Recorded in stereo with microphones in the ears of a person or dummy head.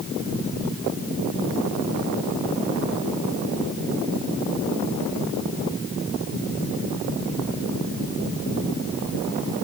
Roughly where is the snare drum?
I don't hear a snare drum.